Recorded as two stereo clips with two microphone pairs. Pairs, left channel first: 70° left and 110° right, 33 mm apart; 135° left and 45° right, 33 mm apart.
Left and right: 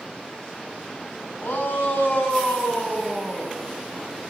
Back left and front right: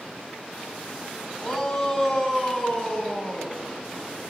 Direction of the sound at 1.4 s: 65° left.